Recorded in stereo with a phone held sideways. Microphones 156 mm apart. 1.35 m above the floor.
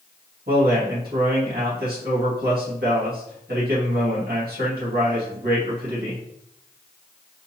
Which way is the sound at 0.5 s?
85° right.